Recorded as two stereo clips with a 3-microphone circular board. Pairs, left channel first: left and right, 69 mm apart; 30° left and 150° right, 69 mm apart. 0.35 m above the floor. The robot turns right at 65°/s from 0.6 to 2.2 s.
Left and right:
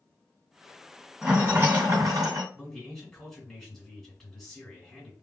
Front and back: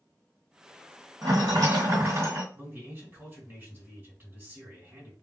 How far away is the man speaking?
About 1.7 m.